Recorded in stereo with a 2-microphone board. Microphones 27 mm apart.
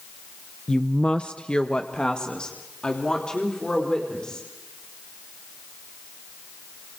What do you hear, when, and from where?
0.7 s a woman speaking: 25° left (ahead or behind), 0.7 m; by 4.5 s 30° left (ahead or behind), 5 m